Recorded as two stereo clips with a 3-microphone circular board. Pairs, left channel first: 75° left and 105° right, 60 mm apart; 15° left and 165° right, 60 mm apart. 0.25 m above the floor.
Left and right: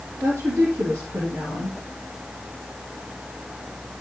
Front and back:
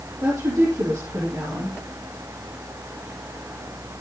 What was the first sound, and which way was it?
A woman speaking, 145° right.